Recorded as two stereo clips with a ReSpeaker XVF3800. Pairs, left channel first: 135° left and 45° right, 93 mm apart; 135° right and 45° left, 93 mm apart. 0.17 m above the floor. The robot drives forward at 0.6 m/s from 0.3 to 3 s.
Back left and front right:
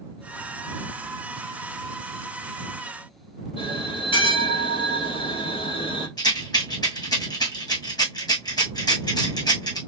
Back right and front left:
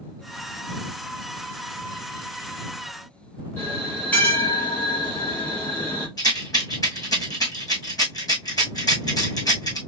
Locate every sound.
3.6 s a bell: 150° left, 2.5 m
6.2 s a rattle: 175° left, 2.5 m